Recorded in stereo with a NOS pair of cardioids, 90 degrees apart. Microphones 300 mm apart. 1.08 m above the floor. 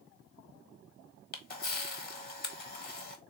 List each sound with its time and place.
1.3 s a camera shutter: 30° left, 1.3 m